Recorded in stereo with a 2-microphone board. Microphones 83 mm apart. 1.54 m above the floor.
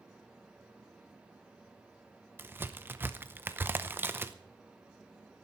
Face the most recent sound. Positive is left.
turn(degrees=-25)  # may be behind; listen again after turning